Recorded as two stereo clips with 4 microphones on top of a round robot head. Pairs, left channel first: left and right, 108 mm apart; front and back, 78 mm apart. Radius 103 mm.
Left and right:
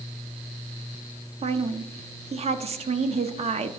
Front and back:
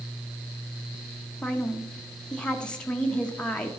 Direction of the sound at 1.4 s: 80° right.